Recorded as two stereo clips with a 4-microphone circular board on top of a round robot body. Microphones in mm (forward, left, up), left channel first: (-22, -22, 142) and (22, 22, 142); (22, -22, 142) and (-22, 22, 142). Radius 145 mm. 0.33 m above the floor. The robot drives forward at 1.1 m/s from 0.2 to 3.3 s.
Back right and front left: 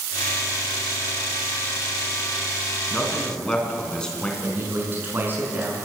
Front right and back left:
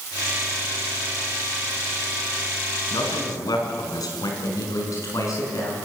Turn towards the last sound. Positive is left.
turn(degrees=-15)